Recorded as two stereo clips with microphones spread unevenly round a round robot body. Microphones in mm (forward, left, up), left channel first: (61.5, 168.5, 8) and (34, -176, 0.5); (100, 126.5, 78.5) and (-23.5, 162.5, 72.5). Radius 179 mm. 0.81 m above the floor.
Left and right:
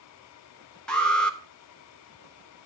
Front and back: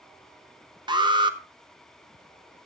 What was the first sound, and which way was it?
An alarm, 175° left.